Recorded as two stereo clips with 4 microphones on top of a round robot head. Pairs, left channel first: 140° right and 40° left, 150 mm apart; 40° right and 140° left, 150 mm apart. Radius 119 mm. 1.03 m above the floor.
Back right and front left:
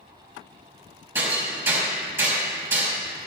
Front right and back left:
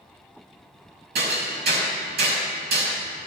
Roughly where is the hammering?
Behind left.